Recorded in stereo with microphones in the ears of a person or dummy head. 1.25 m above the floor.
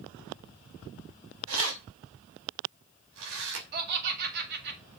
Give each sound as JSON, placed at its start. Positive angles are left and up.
{"t": 1.5, "sound": "keys jangling", "side_deg": -75, "distance_m": 5.0}
{"t": 3.7, "sound": "laughter", "side_deg": -55, "distance_m": 3.0}